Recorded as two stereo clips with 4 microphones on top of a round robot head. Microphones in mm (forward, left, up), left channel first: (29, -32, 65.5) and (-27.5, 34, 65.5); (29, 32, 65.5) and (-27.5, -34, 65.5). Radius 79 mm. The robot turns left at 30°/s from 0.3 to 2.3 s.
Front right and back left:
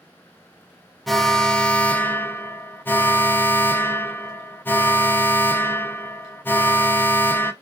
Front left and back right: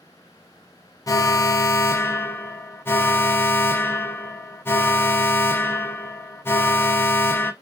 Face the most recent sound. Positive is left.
turn(degrees=5)